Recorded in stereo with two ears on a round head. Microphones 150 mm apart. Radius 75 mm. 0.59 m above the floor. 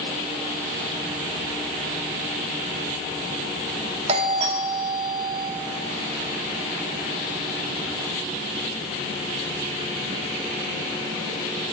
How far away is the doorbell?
About 1.7 m.